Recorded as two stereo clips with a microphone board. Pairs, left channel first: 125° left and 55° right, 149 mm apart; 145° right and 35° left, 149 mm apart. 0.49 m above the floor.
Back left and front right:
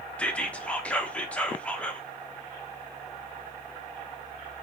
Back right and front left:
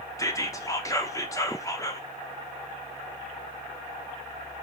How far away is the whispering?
About 0.8 m.